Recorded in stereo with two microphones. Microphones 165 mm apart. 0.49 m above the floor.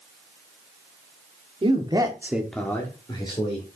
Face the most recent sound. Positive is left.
turn(degrees=30)  # may be behind; listen again after turning